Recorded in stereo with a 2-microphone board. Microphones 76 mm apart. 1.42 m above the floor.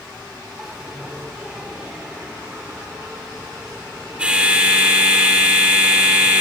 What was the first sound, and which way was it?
A bell, 15° right (ahead or behind).